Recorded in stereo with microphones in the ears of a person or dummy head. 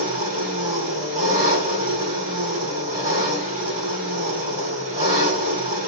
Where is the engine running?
50° right (ahead or behind), 1.9 m.